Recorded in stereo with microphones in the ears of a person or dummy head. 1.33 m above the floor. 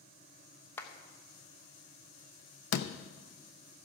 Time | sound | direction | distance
0.8 | a clap | 15° left (ahead or behind) | 1.0 m
2.7 | a door slam | 65° left (ahead or behind) | 0.6 m